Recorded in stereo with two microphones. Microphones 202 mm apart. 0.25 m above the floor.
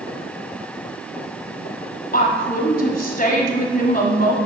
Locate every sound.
2.1 s a woman speaking: 45° left (ahead or behind), 1.7 m